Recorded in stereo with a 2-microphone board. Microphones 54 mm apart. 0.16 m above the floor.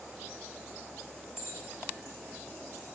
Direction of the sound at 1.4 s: 75° left (ahead or behind).